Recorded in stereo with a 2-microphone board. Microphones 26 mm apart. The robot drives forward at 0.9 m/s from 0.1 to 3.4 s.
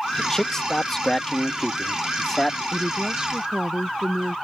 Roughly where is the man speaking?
Left.